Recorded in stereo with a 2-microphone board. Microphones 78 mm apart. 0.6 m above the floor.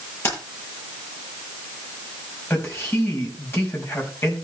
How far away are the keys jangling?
About 9 m.